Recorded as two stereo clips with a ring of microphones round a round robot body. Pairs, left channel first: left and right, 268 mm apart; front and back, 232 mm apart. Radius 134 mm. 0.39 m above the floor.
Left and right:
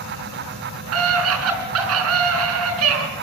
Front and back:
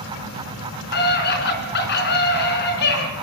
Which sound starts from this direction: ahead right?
A scream, at 0.9 s.